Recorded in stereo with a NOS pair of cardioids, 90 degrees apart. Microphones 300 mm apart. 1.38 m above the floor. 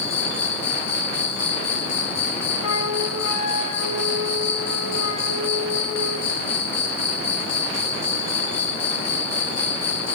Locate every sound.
0.0 s an insect: 55° left, 0.7 m
2.6 s a flute: 65° left, 0.8 m